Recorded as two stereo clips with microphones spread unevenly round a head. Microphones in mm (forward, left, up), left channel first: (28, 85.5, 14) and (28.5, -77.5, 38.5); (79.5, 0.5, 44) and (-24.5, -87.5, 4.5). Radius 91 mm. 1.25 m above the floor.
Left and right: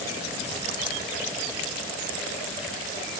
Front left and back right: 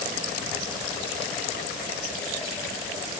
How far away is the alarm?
No alarm in this recording.